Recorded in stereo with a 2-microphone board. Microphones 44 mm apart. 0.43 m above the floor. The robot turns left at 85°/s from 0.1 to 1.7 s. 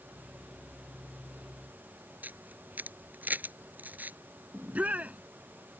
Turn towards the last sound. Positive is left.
turn(degrees=-35)  # may be behind; listen again after turning